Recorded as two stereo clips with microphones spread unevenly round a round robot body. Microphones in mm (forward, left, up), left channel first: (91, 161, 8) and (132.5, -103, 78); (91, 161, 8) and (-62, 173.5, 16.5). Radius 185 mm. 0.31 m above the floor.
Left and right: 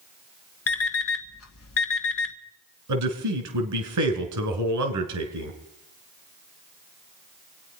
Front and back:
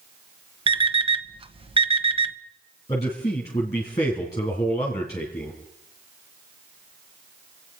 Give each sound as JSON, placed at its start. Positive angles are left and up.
{"t": 0.7, "sound": "an alarm clock", "azimuth_deg": 120, "distance_m": 1.1}
{"t": 2.9, "sound": "a man speaking", "azimuth_deg": -80, "distance_m": 2.5}